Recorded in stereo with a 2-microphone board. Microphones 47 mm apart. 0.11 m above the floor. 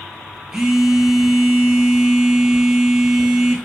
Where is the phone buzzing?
10° right (ahead or behind), 0.6 m.